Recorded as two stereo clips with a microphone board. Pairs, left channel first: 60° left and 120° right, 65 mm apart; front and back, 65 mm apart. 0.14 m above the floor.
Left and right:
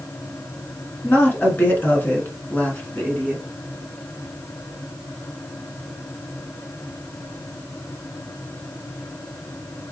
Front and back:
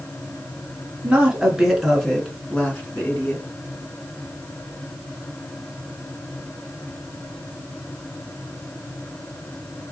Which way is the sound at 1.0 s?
110° left.